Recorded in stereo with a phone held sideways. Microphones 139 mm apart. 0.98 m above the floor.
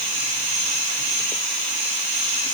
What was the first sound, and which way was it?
Only background noise.